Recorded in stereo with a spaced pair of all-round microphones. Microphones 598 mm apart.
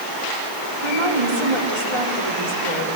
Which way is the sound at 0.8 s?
60° right (ahead or behind).